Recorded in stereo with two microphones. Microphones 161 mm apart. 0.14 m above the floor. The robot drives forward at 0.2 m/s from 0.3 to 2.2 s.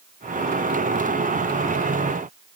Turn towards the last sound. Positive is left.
No sound to turn to.